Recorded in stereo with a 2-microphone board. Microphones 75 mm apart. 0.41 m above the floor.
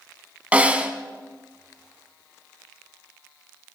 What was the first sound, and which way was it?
A snare drum, 20° right (ahead or behind).